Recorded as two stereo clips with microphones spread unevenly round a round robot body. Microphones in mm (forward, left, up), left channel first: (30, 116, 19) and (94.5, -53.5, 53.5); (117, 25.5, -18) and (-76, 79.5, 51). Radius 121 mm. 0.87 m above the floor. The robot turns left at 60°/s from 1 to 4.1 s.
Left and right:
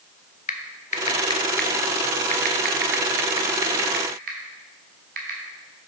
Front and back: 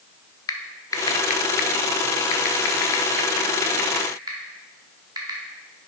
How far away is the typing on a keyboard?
About 0.8 m.